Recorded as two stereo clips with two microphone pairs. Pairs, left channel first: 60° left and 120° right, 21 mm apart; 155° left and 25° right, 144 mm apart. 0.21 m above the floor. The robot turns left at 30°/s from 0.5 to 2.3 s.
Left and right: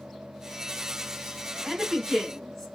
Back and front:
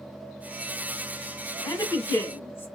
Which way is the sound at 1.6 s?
130° left.